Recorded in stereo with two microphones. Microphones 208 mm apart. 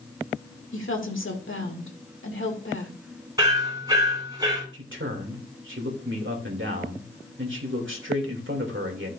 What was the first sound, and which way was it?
A woman speaking, 75° left (ahead or behind).